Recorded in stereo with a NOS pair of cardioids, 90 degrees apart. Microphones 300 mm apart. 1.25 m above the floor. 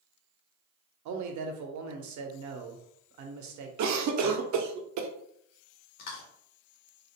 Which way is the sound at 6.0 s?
65° left.